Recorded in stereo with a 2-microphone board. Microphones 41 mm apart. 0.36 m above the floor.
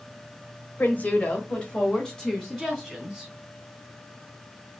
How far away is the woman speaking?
About 1.3 m.